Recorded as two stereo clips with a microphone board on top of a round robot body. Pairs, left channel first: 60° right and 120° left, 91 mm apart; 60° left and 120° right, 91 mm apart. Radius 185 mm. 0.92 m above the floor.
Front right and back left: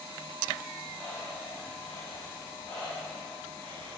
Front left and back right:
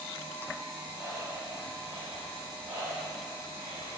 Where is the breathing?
140° right, 3 m.